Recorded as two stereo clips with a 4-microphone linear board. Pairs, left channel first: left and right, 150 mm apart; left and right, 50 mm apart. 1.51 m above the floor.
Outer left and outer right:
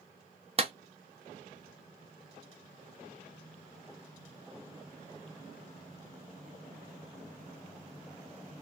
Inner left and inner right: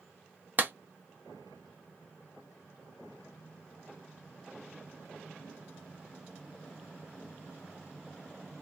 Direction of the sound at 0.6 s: 40° right (ahead or behind).